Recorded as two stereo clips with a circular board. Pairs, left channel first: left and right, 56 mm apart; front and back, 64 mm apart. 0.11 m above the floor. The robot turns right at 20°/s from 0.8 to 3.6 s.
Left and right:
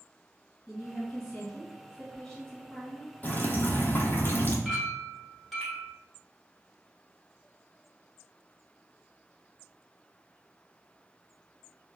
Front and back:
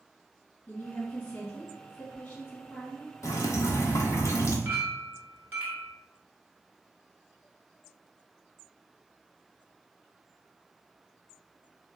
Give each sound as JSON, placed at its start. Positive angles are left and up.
{"t": 0.7, "sound": "a woman speaking", "azimuth_deg": 0, "distance_m": 1.8}
{"t": 3.2, "sound": "dripping", "azimuth_deg": 30, "distance_m": 0.6}
{"t": 4.7, "sound": "a clink", "azimuth_deg": 180, "distance_m": 1.0}